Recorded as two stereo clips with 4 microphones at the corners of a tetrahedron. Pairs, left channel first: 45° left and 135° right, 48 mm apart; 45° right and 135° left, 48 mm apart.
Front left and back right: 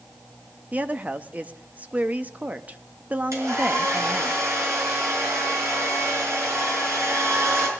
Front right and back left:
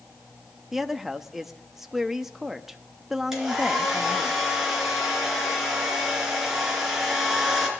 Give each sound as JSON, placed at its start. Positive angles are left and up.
{"t": 0.7, "sound": "a woman speaking", "azimuth_deg": -145, "distance_m": 0.7}
{"t": 3.3, "sound": "a hair dryer", "azimuth_deg": -145, "distance_m": 4.5}